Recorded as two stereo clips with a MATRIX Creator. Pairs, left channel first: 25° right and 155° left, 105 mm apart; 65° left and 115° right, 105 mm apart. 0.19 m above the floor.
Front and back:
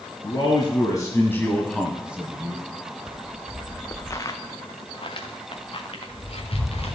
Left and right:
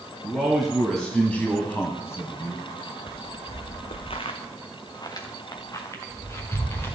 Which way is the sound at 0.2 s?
30° right.